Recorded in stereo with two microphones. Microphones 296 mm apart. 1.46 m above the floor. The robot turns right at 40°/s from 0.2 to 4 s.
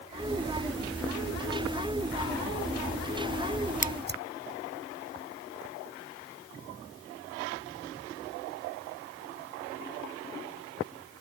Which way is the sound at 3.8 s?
25° right (ahead or behind).